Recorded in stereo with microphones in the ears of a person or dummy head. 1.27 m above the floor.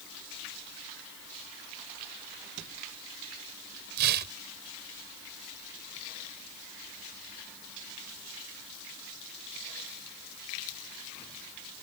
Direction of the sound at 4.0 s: 60° right (ahead or behind).